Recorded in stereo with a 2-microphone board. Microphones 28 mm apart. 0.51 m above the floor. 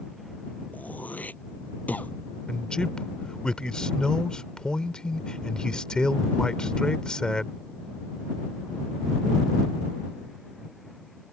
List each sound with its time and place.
0.7 s throat clearing: 85° left
2.5 s a man speaking: 30° left (ahead or behind)